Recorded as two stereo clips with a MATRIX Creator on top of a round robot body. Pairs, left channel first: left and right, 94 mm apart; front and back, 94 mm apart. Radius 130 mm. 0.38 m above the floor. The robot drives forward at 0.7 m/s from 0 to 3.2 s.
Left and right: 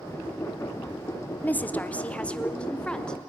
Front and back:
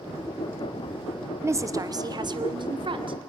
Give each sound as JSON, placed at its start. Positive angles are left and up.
{"t": 1.4, "sound": "a woman speaking", "azimuth_deg": 145, "distance_m": 1.1}